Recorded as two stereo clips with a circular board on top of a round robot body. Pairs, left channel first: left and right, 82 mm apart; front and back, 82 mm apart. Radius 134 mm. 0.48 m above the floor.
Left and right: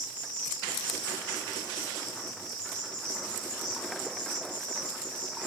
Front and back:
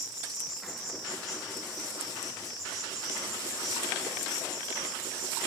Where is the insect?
85° left, 4 m.